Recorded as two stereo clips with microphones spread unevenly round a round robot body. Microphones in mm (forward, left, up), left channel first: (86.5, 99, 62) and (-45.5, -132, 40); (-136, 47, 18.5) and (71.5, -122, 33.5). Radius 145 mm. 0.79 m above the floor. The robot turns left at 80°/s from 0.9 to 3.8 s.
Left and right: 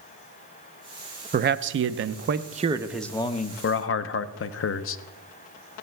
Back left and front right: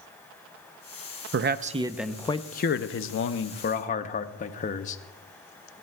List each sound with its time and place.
1.3 s a man speaking: 75° right, 0.6 m; by 5.0 s 90° left, 0.6 m